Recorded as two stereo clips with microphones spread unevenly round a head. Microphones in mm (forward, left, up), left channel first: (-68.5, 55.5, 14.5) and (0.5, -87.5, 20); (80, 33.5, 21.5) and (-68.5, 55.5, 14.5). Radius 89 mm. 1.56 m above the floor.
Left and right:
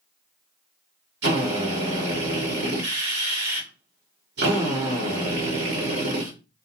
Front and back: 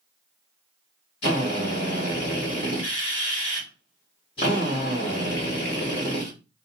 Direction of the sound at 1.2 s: 70° right.